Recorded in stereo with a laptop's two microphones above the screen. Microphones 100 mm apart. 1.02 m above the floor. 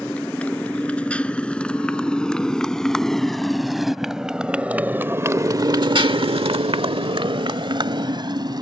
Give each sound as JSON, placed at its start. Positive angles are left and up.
{"t": 0.0, "sound": "a motorcycle", "side_deg": 15}